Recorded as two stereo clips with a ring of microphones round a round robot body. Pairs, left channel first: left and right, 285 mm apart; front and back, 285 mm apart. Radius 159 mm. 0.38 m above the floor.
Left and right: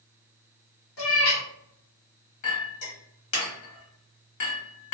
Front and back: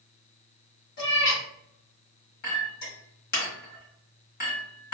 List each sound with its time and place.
1.0 s a cat meowing: 60° left, 1.3 m
2.4 s a clink: 60° left, 1.4 m